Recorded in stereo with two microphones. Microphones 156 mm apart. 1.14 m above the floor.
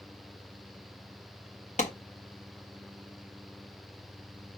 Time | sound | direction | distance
1.8 | a clap | 50° left (ahead or behind) | 1.4 m